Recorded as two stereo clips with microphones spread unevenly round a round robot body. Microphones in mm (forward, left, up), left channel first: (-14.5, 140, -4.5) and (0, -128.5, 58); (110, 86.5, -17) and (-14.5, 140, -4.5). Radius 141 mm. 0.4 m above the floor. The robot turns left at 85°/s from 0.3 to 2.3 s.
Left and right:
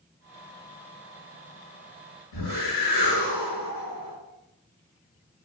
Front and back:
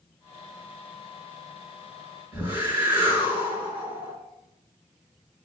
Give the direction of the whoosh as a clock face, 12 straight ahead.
9 o'clock.